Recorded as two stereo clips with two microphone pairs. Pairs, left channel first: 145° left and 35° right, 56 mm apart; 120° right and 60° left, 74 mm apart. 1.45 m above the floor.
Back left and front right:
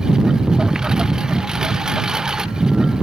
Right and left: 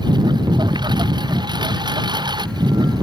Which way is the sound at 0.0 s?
45° left.